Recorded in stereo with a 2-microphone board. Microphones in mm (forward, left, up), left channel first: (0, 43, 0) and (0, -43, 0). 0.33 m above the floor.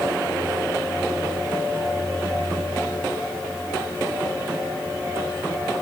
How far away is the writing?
No writing in this recording.